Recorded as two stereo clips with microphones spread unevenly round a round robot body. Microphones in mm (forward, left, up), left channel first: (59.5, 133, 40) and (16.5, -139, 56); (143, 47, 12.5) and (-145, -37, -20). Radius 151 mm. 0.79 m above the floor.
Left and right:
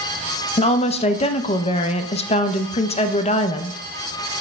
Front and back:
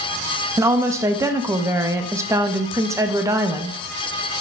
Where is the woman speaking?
130° left, 0.6 m.